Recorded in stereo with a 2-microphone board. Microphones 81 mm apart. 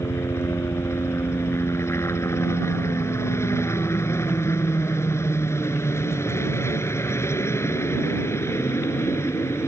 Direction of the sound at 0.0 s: 35° left (ahead or behind).